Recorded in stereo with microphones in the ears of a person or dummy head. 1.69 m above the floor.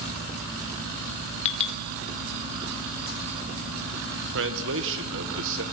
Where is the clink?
35° left (ahead or behind), 2 m.